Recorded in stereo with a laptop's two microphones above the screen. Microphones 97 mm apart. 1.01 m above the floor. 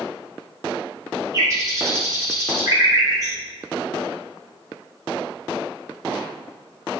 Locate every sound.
1.3 s a bird: 30° right (ahead or behind), 2.5 m